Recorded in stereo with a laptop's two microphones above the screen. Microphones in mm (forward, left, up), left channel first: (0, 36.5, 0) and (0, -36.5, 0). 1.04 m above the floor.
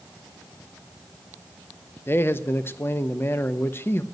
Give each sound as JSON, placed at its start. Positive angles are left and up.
{"t": 2.1, "sound": "a man speaking", "side_deg": 35, "distance_m": 0.7}